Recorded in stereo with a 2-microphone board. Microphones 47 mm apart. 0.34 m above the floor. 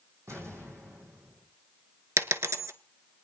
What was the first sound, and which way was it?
An explosion, 75° right (ahead or behind).